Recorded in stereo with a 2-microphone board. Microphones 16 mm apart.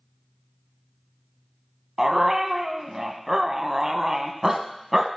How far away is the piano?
No piano in this recording.